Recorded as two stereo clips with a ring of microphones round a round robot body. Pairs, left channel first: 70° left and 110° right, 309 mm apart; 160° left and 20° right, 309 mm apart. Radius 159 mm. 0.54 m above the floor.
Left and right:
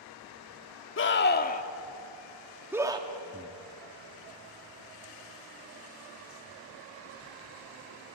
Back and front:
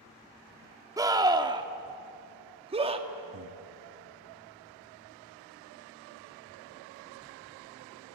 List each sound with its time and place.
1.0 s a scream: 50° left, 1.6 m; by 3.1 s 65° right, 1.4 m
3.3 s breathing: 45° right, 1.3 m